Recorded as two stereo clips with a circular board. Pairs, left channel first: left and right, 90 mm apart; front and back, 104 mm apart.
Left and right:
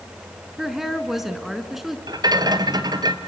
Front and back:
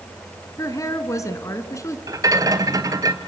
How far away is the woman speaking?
About 1.4 m.